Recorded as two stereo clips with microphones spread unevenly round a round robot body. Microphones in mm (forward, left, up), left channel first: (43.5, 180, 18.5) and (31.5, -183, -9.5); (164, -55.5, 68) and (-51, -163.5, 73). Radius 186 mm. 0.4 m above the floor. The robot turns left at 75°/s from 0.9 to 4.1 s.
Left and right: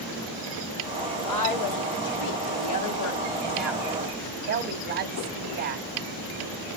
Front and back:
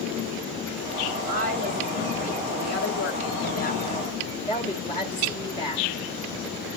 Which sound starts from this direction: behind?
A woman speaking, at 1.3 s.